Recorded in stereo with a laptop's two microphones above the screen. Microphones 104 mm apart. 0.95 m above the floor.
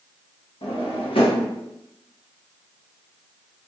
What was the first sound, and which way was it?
A drawer, 60° left (ahead or behind).